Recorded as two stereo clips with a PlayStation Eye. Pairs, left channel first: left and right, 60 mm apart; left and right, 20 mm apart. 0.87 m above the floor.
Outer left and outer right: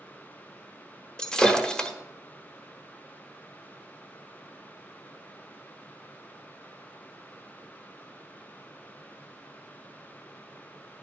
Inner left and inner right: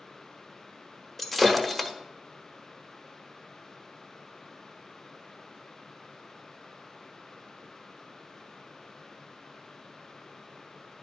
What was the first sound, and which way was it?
Breaking glass, 15° left (ahead or behind).